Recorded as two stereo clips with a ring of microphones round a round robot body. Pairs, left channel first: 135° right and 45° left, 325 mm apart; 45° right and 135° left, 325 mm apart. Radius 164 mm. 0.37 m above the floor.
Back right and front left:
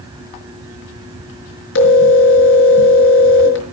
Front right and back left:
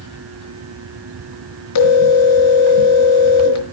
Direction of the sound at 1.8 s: 85° right.